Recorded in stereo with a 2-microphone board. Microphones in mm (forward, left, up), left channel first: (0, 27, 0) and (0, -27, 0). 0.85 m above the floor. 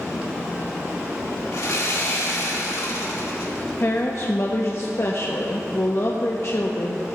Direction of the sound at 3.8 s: 55° left (ahead or behind).